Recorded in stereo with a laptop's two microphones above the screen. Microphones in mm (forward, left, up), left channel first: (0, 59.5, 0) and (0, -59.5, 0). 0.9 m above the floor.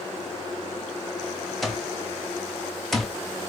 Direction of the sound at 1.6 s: Centre (ahead or behind).